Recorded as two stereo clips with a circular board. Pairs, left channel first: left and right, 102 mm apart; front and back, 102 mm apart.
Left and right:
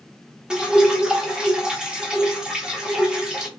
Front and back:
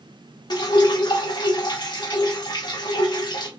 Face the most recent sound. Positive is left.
turn(degrees=-10)